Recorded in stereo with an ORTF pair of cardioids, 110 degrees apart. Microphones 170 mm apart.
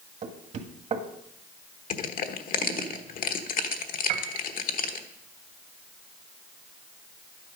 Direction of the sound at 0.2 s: 45° right.